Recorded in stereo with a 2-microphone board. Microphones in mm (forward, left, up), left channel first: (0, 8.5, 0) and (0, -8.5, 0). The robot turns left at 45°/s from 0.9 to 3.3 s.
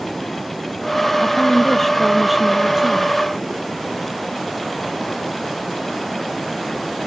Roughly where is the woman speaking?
Ahead left.